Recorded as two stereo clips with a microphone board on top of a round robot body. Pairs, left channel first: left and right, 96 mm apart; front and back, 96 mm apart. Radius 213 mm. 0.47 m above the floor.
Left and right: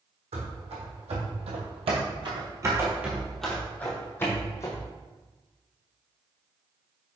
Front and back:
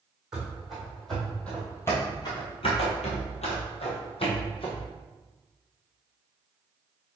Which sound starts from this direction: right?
Running footsteps, at 0.3 s.